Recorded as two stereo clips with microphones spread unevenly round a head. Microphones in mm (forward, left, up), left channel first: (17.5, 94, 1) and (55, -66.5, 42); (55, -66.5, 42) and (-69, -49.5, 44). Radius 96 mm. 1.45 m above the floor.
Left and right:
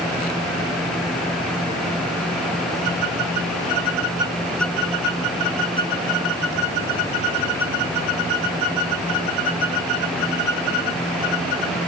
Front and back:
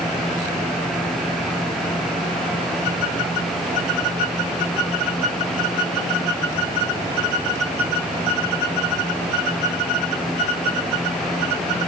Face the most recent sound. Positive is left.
No sound to turn to.